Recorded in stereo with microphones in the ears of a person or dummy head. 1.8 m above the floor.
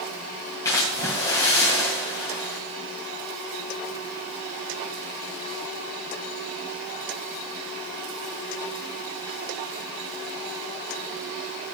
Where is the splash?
15° left (ahead or behind), 2 m.